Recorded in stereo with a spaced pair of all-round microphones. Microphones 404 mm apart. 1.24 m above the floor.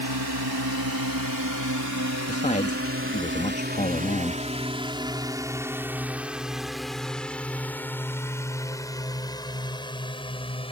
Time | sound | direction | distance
0.0 | a drone | 70° right (ahead or behind) | ?
2.3 | a man speaking | 20° left (ahead or behind) | ?